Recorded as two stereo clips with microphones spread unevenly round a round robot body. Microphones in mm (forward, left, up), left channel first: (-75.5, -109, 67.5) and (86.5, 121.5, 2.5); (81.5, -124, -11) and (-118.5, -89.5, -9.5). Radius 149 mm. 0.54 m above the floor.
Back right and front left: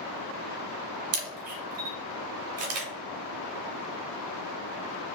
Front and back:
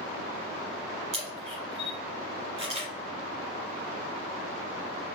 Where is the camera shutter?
100° left, 0.9 m.